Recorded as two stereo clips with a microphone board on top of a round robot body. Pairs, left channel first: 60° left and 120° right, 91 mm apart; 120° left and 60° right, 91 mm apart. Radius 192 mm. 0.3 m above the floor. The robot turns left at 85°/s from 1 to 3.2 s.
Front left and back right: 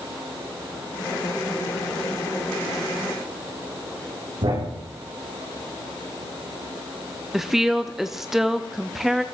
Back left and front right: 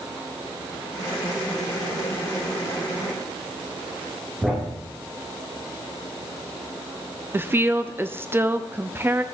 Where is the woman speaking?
35° right, 0.9 m.